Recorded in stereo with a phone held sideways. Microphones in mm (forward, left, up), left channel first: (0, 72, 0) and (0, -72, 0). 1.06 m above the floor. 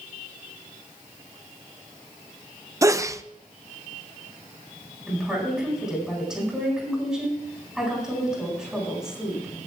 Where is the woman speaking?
5° right (ahead or behind), 9.5 m.